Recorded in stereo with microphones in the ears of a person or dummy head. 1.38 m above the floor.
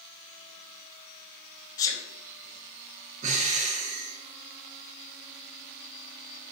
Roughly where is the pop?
No pop in this recording.